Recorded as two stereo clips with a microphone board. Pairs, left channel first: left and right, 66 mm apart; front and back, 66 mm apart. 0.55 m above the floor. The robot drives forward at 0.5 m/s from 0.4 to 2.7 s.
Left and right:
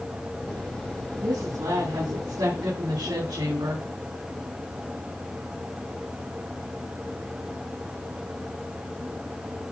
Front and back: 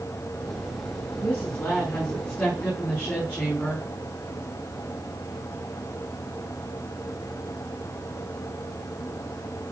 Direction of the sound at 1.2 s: 70° right.